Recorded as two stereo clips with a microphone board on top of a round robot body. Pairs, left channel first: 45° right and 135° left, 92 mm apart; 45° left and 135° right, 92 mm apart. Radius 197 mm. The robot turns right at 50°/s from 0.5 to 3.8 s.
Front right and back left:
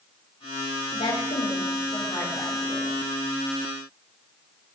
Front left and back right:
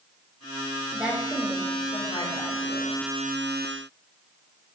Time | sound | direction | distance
0.9 | a woman speaking | 60° right | 7.5 m